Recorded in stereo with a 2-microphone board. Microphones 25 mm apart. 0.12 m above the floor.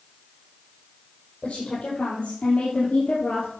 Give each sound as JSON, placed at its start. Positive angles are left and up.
{"t": 1.4, "sound": "a woman speaking", "side_deg": 65, "distance_m": 4.5}